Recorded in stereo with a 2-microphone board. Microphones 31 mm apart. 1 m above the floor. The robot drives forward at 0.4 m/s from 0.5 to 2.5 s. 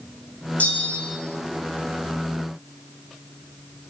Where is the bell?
60° left (ahead or behind), 3.5 m; by 1.2 s 55° left (ahead or behind), 3.5 m.